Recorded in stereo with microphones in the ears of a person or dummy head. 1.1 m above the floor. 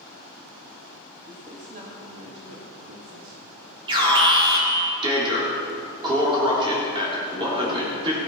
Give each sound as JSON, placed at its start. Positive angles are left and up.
{"t": 1.3, "sound": "a man speaking", "side_deg": -30, "distance_m": 1.6}
{"t": 3.9, "sound": "an alarm", "side_deg": -25, "distance_m": 3.5}